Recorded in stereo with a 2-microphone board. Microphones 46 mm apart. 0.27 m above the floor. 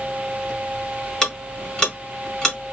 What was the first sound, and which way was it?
Ticking, 20° left (ahead or behind).